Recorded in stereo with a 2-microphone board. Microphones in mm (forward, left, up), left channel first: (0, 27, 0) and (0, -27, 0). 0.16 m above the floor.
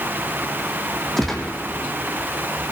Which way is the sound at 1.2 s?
5° left (ahead or behind).